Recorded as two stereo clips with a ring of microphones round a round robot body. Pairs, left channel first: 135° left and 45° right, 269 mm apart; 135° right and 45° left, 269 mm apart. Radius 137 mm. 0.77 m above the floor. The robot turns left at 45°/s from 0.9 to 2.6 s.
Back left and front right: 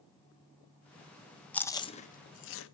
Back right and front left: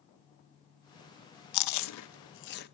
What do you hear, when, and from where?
1.5 s chewing: 140° right, 0.8 m; by 2.7 s 175° left, 0.8 m